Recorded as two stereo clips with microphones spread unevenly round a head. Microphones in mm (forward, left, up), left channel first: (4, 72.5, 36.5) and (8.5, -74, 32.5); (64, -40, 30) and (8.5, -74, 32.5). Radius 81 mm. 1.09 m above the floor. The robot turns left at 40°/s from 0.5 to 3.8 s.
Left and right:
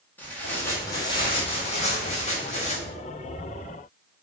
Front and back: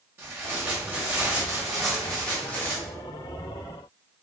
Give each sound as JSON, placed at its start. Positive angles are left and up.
{"t": 0.2, "sound": "tearing paper", "azimuth_deg": 165, "distance_m": 1.0}